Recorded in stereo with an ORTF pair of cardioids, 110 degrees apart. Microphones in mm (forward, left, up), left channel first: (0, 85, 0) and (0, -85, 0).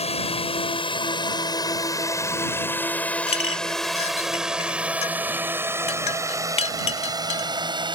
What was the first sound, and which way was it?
A drone, 40° left.